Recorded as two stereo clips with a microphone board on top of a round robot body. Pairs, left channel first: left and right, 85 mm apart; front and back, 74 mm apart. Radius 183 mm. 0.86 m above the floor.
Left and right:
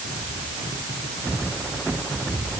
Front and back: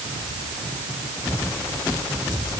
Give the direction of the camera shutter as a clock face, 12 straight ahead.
No camera shutter in this recording.